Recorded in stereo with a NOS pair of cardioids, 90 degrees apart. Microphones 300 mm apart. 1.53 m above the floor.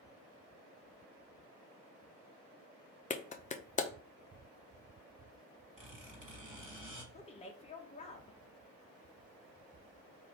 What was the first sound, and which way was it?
A clap, 25° left.